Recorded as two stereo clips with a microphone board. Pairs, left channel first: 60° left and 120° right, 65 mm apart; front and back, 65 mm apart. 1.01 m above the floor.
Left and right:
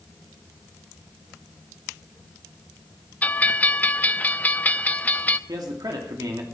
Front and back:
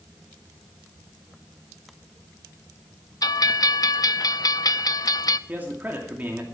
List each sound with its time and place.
3.2 s a bell: 5° right, 0.5 m
5.5 s a man speaking: 115° right, 2.5 m